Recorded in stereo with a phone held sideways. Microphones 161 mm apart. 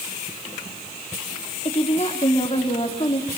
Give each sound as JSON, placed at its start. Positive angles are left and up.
{"t": 1.6, "sound": "a woman speaking", "side_deg": 35, "distance_m": 4.0}